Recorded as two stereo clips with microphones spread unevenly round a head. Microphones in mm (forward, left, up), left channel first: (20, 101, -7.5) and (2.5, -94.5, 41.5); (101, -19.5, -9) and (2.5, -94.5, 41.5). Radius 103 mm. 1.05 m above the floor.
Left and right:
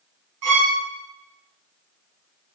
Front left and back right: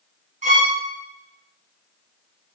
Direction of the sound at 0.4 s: 115° right.